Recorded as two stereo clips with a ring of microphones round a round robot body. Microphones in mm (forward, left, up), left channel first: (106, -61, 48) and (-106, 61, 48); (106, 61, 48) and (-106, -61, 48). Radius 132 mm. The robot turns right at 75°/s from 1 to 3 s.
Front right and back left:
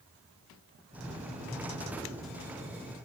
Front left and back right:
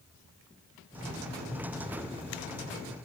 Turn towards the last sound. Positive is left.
No sound to turn to.